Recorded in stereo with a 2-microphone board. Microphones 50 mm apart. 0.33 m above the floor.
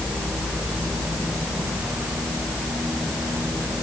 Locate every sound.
Only background noise.